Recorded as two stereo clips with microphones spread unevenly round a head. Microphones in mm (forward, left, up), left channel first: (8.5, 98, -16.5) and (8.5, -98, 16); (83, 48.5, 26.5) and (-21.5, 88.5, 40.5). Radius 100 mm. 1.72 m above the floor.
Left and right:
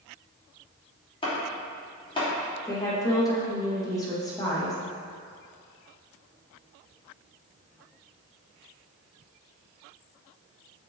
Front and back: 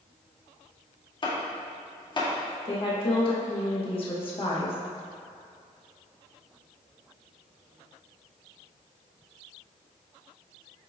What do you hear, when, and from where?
1.2 s chopping: 25° left, 2.5 m
2.6 s a woman speaking: 15° left, 2.5 m